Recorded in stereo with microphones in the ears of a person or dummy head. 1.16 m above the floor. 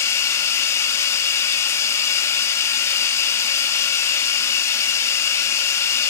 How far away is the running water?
About 1.6 m.